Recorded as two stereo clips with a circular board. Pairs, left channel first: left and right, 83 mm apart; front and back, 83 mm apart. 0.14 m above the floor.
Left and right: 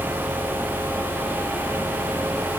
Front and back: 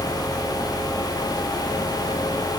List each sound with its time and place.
Only background noise.